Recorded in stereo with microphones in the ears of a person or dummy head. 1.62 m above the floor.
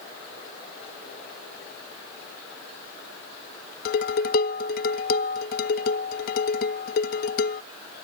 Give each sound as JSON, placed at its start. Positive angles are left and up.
{"t": 3.9, "sound": "dishes clattering", "side_deg": 55}